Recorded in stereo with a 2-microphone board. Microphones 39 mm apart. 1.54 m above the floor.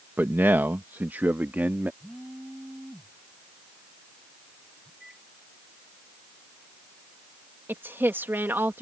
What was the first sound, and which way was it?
A man speaking, 60° right (ahead or behind).